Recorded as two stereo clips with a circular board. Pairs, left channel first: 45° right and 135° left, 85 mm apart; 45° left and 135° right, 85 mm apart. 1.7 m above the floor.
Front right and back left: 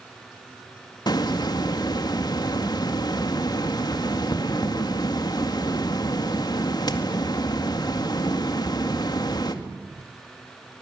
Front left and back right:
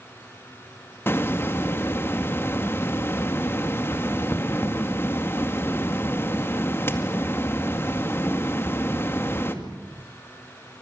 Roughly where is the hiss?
Ahead.